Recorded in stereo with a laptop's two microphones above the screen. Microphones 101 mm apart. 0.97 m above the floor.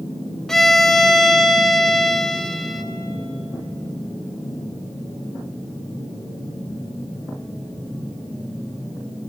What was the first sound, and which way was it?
A violin, 5° left (ahead or behind).